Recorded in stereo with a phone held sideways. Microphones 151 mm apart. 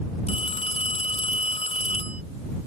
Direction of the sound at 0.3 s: 45° left (ahead or behind).